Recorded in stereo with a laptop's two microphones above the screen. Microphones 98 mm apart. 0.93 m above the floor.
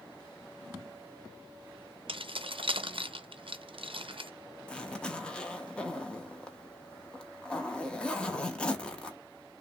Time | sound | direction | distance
2.1 | keys jangling | 65° right (ahead or behind) | 0.5 m
4.7 | a zipper | 10° left (ahead or behind) | 0.6 m